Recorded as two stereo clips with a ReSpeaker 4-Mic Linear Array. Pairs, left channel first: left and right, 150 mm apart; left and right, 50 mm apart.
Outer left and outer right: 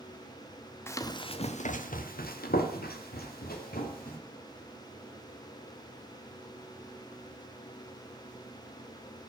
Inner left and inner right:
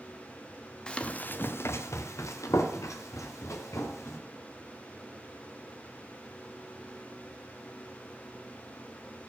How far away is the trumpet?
I don't hear a trumpet.